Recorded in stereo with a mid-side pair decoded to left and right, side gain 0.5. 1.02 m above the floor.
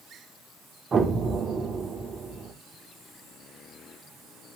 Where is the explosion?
35° right, 3 m.